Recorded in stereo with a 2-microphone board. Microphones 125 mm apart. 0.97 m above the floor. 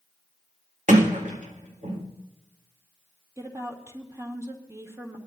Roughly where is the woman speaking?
Right.